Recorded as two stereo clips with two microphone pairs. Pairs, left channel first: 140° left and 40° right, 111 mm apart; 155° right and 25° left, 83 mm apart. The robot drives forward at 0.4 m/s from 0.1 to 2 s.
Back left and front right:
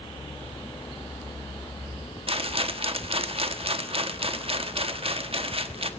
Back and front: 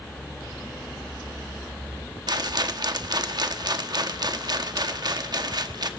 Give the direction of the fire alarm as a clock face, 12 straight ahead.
I don't hear a fire alarm.